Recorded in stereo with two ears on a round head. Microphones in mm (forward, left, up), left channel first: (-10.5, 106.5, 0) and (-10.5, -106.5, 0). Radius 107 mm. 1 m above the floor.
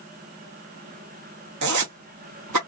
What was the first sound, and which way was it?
A zipper, 90° right.